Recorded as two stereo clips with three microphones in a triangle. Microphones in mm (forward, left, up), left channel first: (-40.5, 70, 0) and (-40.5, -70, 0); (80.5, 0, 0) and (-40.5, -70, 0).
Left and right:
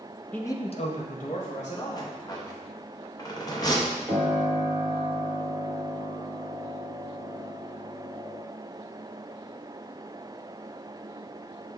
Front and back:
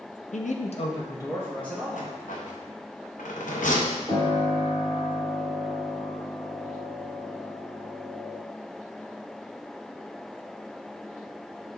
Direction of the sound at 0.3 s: 10° left.